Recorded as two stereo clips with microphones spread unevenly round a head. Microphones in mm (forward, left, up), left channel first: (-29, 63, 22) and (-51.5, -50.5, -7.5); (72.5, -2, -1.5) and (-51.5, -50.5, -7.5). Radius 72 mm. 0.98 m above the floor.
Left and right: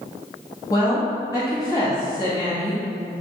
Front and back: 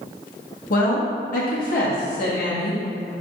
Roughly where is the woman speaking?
Ahead.